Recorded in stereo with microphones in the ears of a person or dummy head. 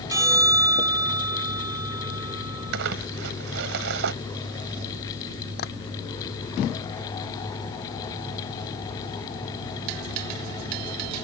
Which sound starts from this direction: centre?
A bell, at 0.1 s.